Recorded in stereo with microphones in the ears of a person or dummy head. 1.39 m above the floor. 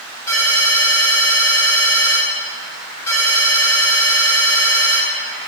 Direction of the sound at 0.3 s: 15° left (ahead or behind).